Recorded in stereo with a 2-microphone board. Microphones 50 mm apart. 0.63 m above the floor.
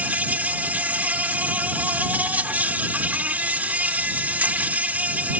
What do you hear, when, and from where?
0.0 s an insect: 35° right (ahead or behind)